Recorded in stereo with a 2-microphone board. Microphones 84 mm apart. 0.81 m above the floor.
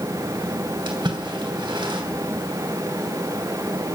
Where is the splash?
70° right (ahead or behind), 3 m.